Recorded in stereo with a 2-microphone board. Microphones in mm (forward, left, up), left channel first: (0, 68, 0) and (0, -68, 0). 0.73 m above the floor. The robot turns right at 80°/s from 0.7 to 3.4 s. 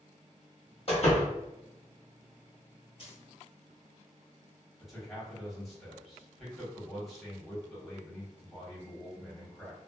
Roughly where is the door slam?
Left.